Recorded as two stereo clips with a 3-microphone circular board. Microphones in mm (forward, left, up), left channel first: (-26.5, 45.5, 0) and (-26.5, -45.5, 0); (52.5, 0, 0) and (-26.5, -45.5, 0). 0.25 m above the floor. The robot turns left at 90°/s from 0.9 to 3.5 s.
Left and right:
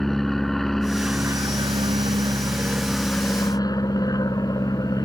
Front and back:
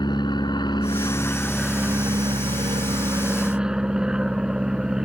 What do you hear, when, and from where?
0.0 s an aircraft: 5° left; by 5.1 s 130° left